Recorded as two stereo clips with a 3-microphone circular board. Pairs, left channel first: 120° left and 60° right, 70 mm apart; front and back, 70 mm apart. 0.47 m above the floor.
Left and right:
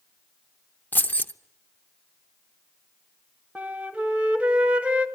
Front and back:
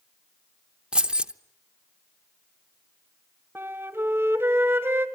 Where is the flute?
130° right, 2.0 m.